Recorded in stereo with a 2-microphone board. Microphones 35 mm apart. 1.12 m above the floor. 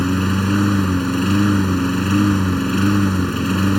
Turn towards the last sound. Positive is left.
turn(degrees=5)  # may be behind; listen again after turning